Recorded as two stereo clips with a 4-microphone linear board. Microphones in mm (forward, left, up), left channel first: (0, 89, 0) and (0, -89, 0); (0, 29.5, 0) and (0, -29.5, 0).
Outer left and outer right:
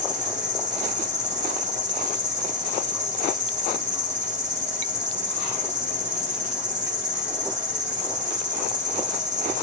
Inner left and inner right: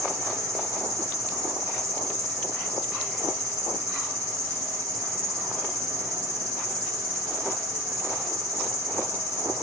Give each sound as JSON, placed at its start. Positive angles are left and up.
{"t": 0.0, "sound": "an insect", "side_deg": -40, "distance_m": 3.0}